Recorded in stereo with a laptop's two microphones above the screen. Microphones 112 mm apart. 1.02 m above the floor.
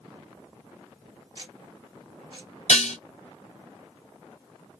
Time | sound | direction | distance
1.4 | ticking | 40° right (ahead or behind) | 1.0 m
2.7 | dishes clattering | 70° left (ahead or behind) | 0.6 m